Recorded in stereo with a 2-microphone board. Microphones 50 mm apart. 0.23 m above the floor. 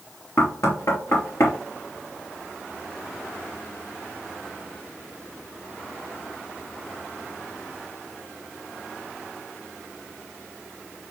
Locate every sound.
0.4 s knocking: 75° left (ahead or behind), 3 m